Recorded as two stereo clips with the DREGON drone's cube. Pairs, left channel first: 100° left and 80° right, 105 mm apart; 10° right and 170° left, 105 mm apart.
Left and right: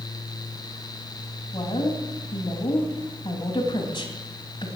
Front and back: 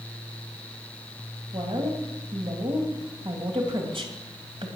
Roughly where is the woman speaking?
Behind left.